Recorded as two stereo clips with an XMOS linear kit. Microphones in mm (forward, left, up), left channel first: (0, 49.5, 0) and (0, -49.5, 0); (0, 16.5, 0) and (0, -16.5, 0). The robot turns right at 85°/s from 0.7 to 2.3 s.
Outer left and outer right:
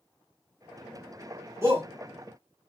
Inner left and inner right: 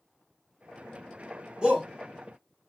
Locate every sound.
1.6 s a shout: 25° right (ahead or behind), 1.5 m; by 1.9 s 20° right (ahead or behind), 1.5 m